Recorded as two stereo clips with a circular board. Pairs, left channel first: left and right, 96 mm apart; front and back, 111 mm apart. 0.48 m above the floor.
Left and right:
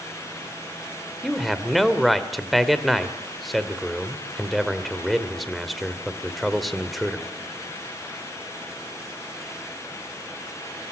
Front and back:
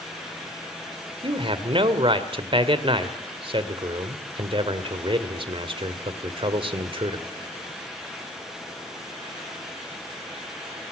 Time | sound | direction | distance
1.2 | a man speaking | straight behind | 1.9 m